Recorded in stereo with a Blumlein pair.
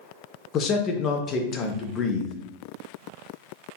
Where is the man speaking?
30° left, 0.8 m.